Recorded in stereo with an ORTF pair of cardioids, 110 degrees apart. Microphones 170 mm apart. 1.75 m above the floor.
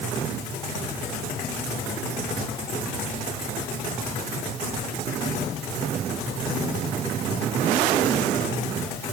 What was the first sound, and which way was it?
Only background noise.